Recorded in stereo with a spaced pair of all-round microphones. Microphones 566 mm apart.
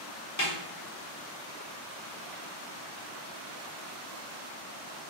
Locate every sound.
0.4 s a snare drum: 30° left (ahead or behind), 1.1 m